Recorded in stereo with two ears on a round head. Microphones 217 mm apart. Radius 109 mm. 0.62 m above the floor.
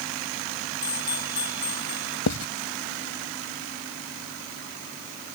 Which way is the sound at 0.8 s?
20° left (ahead or behind).